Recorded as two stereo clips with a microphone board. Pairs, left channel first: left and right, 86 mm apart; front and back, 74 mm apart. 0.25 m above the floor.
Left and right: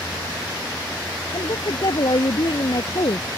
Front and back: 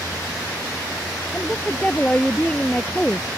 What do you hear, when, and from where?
1.3 s a woman speaking: 75° left